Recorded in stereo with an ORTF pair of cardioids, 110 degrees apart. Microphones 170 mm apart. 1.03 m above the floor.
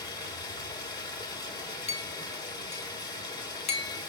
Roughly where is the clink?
Ahead left.